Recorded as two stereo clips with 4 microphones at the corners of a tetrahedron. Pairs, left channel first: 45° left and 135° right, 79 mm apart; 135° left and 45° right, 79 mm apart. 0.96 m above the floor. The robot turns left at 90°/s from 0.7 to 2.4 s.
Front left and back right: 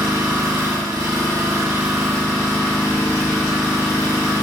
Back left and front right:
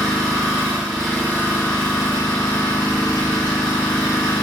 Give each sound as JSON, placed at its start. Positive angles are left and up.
{"t": 0.0, "sound": "an engine running", "azimuth_deg": -105, "distance_m": 1.3}